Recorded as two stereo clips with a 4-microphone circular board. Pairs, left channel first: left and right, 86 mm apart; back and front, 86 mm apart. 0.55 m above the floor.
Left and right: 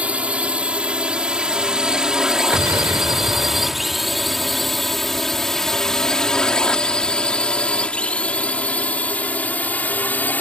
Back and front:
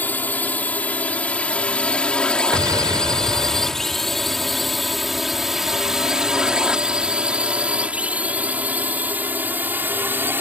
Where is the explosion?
40° right.